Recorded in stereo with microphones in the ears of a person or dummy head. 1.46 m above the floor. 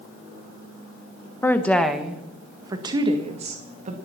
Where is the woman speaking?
20° left (ahead or behind), 1.3 m; by 4.0 s 40° right (ahead or behind), 1.9 m.